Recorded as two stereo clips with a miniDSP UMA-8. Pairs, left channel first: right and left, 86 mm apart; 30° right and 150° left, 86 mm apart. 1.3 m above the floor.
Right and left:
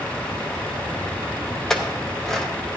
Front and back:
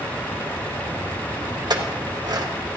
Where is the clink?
175° right, 1.0 m.